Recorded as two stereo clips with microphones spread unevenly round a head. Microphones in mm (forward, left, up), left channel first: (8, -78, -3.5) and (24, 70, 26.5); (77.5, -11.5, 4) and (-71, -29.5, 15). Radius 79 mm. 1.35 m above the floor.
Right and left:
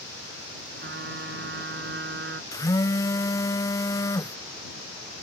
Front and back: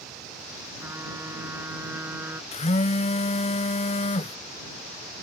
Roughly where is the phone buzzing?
Ahead right.